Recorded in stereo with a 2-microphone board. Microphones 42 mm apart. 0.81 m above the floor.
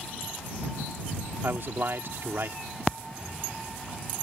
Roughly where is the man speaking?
Right.